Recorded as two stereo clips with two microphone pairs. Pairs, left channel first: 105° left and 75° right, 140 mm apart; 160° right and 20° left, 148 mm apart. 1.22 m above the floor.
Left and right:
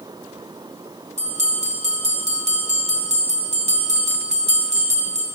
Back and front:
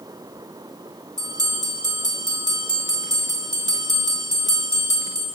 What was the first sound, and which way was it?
A bell, 45° right.